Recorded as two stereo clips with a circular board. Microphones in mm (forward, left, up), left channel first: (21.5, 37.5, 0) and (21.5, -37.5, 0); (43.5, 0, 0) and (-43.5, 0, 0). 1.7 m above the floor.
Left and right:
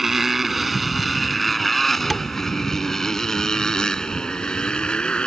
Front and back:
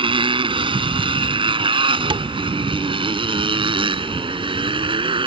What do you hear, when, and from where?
0.0 s a motorcycle: 175° right; by 5.3 s 170° left
2.1 s tapping: straight behind